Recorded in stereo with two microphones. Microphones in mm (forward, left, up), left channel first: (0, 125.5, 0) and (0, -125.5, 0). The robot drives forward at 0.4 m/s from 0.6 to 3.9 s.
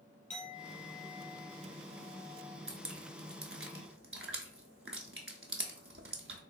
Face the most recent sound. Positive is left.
turn(degrees=-55)  # may be behind; listen again after turning